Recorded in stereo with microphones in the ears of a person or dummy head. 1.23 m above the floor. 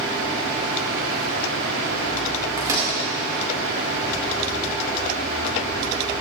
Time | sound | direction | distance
2.6 | a microwave | 20° right (ahead or behind) | 2.5 m